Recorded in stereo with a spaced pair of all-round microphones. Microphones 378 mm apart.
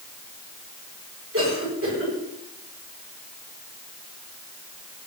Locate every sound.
1.3 s a cough: 35° right (ahead or behind), 9.5 m